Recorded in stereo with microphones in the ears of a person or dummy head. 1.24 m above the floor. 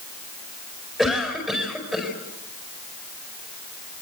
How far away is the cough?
About 5 m.